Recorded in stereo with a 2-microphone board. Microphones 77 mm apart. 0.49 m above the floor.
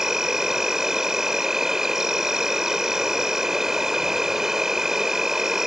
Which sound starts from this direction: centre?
An insect, at 0.0 s.